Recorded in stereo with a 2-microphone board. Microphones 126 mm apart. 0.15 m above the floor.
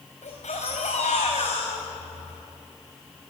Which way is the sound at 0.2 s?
70° left (ahead or behind).